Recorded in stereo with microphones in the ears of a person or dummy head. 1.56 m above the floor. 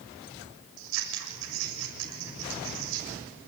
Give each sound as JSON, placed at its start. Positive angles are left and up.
{"t": 0.8, "sound": "scissors", "side_deg": -75, "distance_m": 6.5}